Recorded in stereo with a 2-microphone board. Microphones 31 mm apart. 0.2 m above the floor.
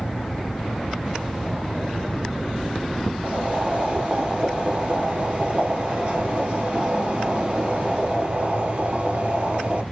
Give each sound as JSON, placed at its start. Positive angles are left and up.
{"t": 3.2, "sound": "boiling", "side_deg": -50, "distance_m": 0.9}